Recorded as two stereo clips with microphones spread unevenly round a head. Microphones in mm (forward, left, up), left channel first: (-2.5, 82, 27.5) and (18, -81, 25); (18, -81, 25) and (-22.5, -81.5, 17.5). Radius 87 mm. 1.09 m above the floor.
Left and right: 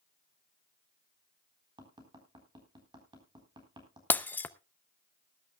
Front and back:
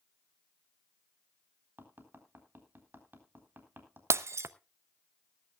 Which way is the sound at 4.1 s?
175° left.